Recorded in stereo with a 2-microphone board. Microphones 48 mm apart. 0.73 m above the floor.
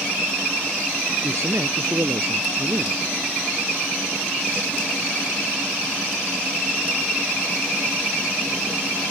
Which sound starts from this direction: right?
A man speaking, at 1.2 s.